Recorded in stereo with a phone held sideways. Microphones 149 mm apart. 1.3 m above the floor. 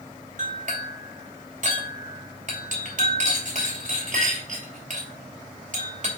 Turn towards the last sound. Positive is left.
turn(degrees=-60)  # may be behind; listen again after turning